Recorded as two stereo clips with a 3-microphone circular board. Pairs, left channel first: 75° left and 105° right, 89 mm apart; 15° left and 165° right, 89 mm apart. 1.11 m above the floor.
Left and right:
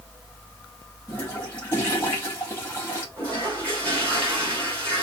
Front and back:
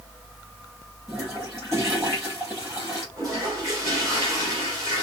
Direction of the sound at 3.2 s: 145° left.